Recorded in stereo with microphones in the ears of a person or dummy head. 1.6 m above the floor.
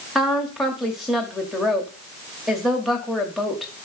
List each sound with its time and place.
0.1 s a woman speaking: centre (ahead or behind), 0.6 m